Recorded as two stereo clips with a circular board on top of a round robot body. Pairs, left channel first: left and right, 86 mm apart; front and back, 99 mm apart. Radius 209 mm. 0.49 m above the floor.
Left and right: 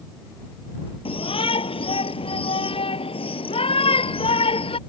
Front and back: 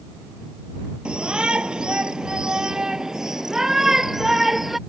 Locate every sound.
1.1 s a shout: 100° left; by 4.8 s 90° left